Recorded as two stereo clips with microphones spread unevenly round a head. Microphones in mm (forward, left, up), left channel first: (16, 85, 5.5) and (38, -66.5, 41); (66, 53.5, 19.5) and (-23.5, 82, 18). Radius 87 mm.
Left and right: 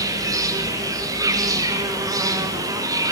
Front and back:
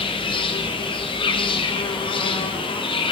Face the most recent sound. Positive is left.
turn(degrees=-5)